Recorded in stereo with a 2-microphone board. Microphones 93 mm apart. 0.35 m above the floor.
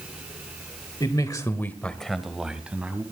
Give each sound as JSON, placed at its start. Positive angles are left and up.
{"t": 1.0, "sound": "a man speaking", "side_deg": 50, "distance_m": 1.1}